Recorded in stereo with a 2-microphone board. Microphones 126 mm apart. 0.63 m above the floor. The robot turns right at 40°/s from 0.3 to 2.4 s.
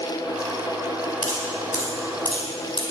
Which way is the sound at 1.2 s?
80° left.